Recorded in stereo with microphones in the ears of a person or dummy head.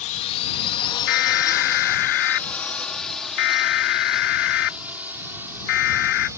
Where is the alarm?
65° left (ahead or behind).